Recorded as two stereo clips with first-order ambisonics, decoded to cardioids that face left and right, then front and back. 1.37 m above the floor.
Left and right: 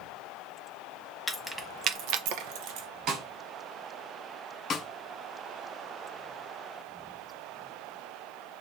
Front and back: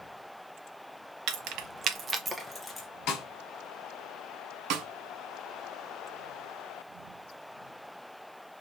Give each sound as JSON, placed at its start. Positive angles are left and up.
{"t": 1.3, "sound": "keys jangling", "azimuth_deg": 170, "distance_m": 0.6}
{"t": 3.1, "sound": "a snare drum", "azimuth_deg": -45, "distance_m": 1.2}
{"t": 4.7, "sound": "a snare drum", "azimuth_deg": 155, "distance_m": 0.5}